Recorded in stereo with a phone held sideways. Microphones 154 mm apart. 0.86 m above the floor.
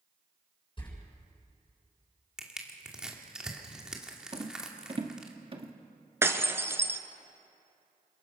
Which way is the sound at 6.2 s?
15° right (ahead or behind).